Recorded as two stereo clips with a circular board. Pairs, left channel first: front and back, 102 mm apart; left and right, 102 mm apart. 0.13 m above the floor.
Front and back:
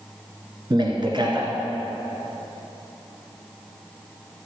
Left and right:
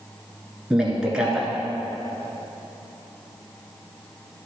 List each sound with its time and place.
0.7 s a man speaking: 170° right, 1.7 m